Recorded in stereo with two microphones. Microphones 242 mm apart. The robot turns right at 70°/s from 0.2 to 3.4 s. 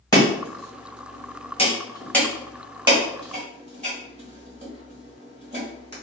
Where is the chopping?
15° left (ahead or behind), 1.2 m; by 5.9 s 30° right (ahead or behind), 1.2 m.